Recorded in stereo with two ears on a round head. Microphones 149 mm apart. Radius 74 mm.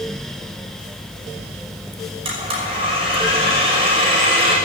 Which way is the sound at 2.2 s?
35° right (ahead or behind).